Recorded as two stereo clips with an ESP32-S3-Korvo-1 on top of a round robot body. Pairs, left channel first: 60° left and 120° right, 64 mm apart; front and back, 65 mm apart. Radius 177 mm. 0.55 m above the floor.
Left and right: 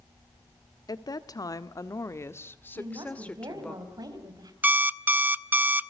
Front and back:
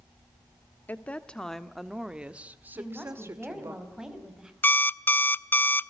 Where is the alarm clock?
60° right, 0.8 m.